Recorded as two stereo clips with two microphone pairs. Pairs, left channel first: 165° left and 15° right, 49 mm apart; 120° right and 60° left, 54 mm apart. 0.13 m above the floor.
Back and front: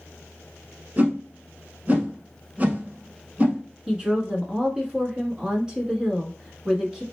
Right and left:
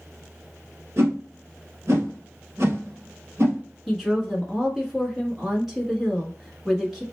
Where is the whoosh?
35° left, 1.6 m.